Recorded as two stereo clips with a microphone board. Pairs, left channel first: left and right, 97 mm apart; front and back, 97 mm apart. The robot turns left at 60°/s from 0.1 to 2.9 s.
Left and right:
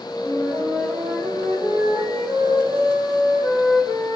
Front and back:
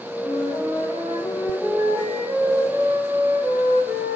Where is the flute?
15° right, 7 m; by 4.2 s 175° right, 7 m.